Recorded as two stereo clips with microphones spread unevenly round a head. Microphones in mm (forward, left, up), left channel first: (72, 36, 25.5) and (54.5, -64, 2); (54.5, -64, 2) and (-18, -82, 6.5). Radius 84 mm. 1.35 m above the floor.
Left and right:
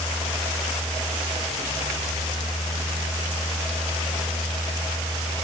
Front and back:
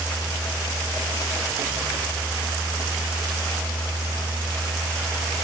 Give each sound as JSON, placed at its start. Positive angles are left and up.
{"t": 0.0, "sound": "a fan", "azimuth_deg": 30, "distance_m": 4.5}